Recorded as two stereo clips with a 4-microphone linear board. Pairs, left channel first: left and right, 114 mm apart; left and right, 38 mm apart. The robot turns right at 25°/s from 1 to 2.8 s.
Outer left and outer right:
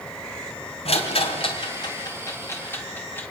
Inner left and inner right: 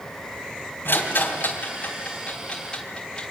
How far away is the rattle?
About 3.5 m.